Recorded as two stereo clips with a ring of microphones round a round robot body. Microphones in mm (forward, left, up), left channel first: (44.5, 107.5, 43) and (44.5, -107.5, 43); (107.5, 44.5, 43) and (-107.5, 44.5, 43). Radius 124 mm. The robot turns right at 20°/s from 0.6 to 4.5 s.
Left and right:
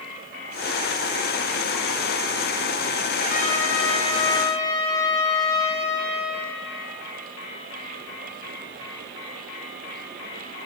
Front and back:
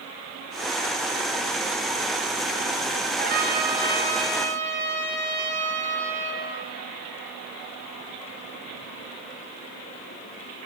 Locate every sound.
3.2 s a trumpet: 135° left, 1.9 m; by 6.5 s 160° left, 1.9 m